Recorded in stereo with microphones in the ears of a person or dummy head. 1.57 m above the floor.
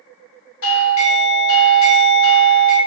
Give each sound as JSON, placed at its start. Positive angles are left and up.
{"t": 0.6, "sound": "a doorbell", "side_deg": 70, "distance_m": 0.9}